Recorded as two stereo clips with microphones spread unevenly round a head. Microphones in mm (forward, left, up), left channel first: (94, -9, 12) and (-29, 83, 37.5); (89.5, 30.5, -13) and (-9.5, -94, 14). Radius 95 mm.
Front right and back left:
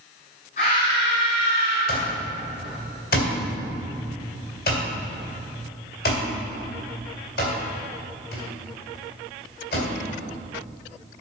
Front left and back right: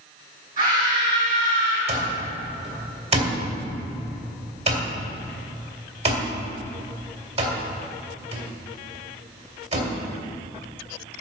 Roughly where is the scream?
Right.